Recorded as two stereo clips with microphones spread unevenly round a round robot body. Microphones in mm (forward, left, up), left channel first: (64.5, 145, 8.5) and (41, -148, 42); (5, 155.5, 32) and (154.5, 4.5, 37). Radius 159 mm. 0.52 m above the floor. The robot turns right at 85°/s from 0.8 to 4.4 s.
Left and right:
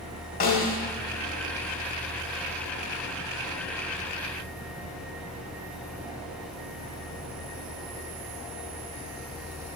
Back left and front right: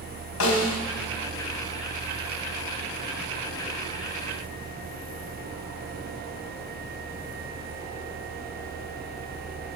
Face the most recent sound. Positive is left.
turn(degrees=95)